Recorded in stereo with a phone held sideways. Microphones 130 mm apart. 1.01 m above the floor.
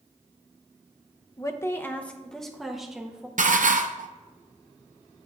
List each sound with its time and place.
1.4 s a woman speaking: 25° left (ahead or behind), 0.8 m; by 3.3 s 10° right (ahead or behind), 1.5 m
3.4 s dishes clattering: 80° right, 0.6 m